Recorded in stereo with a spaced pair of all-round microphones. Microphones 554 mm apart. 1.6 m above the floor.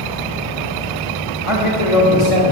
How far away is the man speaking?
About 2.5 m.